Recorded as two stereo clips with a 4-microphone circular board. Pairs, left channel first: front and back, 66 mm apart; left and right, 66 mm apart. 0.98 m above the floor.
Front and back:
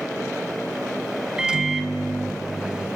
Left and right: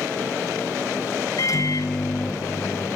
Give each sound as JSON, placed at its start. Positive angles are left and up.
{"t": 1.4, "sound": "a microwave", "azimuth_deg": 105, "distance_m": 0.6}